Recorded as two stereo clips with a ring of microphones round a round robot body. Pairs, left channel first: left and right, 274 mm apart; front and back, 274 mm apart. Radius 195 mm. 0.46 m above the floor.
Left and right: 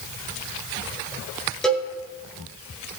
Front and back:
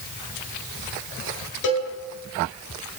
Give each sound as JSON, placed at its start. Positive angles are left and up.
{"t": 1.6, "sound": "a cowbell", "azimuth_deg": 0, "distance_m": 9.0}